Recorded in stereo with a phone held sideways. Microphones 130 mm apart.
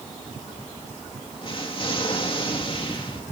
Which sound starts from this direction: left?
An explosion, at 1.4 s.